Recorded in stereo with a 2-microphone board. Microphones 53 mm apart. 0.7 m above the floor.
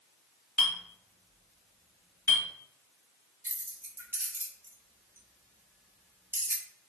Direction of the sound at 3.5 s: 45° right (ahead or behind).